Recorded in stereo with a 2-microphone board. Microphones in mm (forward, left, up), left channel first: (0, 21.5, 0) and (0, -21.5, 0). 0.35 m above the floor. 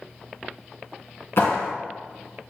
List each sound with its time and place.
1.4 s a clap: 70° left (ahead or behind), 3 m